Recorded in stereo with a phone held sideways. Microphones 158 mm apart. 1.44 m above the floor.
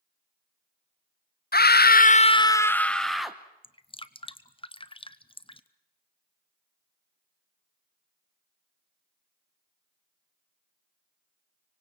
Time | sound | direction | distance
1.5 | a scream | 75° left (ahead or behind) | 0.6 m
3.6 | dripping | 35° left (ahead or behind) | 0.8 m